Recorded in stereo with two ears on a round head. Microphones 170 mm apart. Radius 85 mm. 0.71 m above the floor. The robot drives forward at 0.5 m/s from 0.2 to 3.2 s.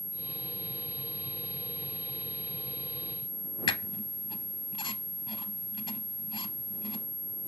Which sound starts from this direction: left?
A squeak, at 3.7 s.